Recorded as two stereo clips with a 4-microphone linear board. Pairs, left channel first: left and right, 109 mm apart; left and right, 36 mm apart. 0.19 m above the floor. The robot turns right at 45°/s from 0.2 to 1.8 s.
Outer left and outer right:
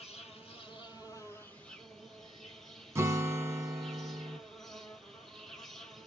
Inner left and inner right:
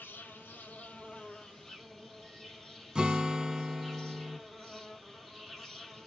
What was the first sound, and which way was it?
An insect, 105° left.